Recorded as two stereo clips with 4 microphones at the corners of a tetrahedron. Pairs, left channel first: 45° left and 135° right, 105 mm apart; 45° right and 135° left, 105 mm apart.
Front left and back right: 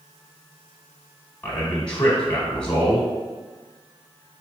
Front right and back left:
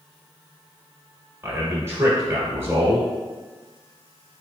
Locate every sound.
1.4 s a man speaking: 110° left, 1.1 m